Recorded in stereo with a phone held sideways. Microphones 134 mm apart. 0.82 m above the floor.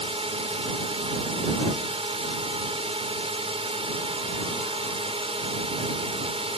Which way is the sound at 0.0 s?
45° right (ahead or behind).